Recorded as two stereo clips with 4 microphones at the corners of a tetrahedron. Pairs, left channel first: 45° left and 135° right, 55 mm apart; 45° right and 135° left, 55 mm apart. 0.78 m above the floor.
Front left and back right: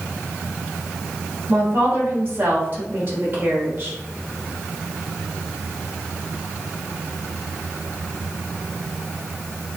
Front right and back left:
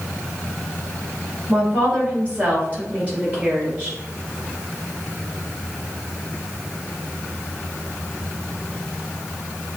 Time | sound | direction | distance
1.5 | a woman speaking | 175° right | 1.7 m